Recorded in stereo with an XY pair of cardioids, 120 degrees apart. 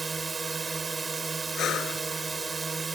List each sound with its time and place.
0.0 s a drone: 25° right
1.6 s breathing: 60° left